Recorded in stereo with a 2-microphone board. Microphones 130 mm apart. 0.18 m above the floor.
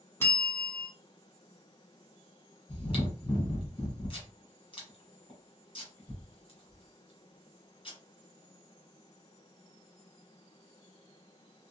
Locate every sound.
0.2 s a bell: 20° left (ahead or behind), 1.1 m
2.7 s chewing: 40° left (ahead or behind), 1.2 m